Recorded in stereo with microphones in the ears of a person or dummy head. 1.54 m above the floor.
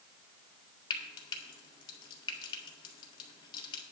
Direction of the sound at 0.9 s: 30° left (ahead or behind).